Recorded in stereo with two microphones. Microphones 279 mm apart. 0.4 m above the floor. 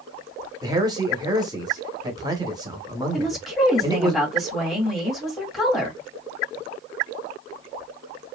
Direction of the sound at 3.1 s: Centre (ahead or behind).